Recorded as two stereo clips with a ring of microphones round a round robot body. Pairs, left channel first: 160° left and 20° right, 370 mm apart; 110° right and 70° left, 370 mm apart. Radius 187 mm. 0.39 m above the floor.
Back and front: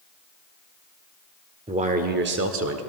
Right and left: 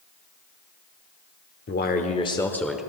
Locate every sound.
1.7 s a man speaking: 85° right, 1.0 m; by 2.8 s 20° right, 1.0 m